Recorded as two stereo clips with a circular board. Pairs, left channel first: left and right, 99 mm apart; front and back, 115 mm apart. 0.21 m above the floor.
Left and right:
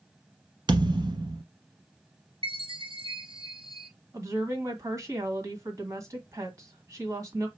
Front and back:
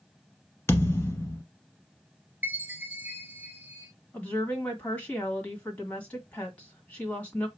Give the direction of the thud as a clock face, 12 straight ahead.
2 o'clock.